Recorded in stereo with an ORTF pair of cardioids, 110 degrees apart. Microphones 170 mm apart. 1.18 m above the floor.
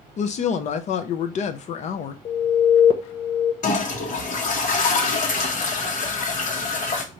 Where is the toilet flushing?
55° left, 1.1 m.